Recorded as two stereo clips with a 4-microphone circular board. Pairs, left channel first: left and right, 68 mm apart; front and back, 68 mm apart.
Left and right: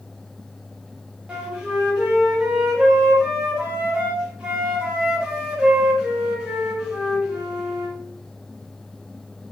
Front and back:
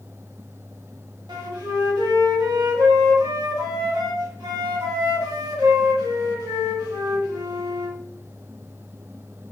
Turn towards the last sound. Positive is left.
turn(degrees=-165)